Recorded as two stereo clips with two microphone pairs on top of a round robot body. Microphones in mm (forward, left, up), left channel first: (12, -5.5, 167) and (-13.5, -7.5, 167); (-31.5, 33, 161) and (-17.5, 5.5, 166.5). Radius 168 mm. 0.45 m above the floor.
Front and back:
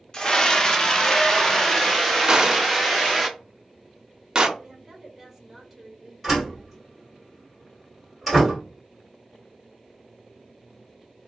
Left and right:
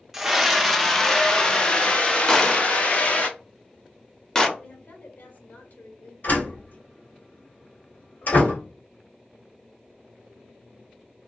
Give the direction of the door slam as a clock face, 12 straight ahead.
9 o'clock.